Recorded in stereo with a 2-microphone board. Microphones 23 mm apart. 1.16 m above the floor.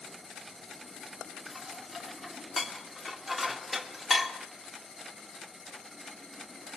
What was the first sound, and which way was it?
Dishes clattering, centre (ahead or behind).